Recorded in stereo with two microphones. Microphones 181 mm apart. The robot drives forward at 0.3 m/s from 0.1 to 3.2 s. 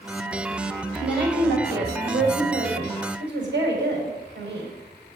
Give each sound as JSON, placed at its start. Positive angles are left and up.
{"t": 1.0, "sound": "a woman speaking", "side_deg": -80, "distance_m": 4.0}